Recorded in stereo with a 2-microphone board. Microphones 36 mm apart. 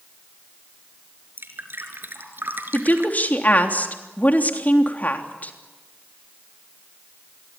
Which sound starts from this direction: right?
Dripping, at 1.4 s.